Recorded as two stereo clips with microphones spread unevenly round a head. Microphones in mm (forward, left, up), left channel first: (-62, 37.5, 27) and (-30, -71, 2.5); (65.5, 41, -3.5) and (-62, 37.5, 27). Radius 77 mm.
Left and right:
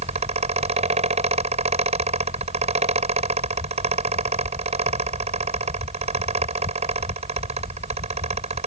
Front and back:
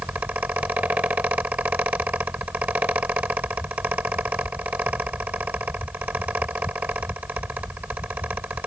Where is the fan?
100° right.